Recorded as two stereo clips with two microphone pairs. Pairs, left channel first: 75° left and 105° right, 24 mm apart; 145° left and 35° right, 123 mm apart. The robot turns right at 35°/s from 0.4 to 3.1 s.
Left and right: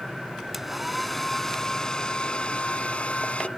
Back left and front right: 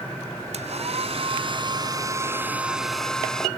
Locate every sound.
0.5 s a hair dryer: 30° right; by 3.5 s 60° left